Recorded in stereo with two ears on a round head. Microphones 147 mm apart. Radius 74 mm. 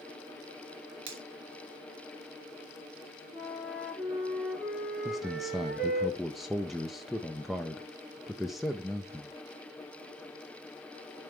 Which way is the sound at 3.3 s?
10° right (ahead or behind).